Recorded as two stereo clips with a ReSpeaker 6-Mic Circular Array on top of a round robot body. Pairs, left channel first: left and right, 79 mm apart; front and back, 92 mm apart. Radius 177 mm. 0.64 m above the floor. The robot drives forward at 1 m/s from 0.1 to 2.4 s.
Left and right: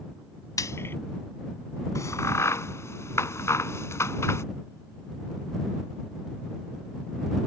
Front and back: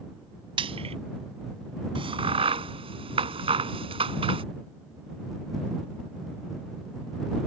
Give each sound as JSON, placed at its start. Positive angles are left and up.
{"t": 0.6, "sound": "frying", "azimuth_deg": 145}
{"t": 1.9, "sound": "a crack", "azimuth_deg": 145}